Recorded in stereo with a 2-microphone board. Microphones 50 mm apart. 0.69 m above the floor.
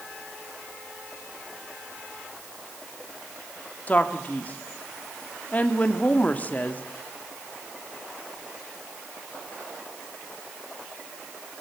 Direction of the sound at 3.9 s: 30° left (ahead or behind).